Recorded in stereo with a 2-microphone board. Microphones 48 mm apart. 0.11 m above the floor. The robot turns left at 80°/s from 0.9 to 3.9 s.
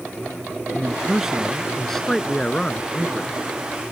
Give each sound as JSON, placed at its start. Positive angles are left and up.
{"t": 0.7, "sound": "a man speaking", "side_deg": -15}